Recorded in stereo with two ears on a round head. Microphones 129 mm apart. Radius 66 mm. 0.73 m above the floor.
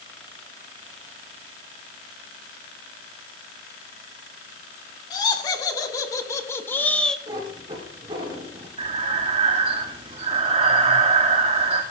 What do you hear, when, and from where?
5.1 s laughter: 30° left (ahead or behind), 2.5 m; by 7.2 s 5° left (ahead or behind), 0.9 m
7.3 s a cat meowing: 30° right (ahead or behind), 4 m
8.8 s breathing: 45° right (ahead or behind), 2.0 m